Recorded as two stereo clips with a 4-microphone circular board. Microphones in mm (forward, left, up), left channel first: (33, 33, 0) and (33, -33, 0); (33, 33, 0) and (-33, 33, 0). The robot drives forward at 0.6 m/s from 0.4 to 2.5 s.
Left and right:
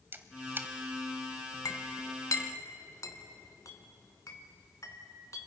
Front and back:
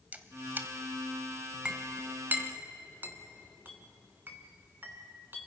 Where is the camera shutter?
125° right, 1.2 m; by 0.7 s 135° right, 1.3 m.